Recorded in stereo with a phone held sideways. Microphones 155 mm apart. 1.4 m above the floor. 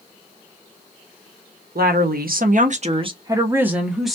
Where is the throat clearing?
I don't hear throat clearing.